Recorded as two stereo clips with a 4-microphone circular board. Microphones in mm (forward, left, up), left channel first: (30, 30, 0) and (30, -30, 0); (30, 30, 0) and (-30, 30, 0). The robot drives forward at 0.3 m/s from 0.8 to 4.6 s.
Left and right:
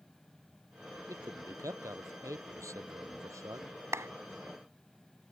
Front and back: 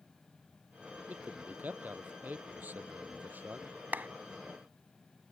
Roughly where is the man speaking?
Behind right.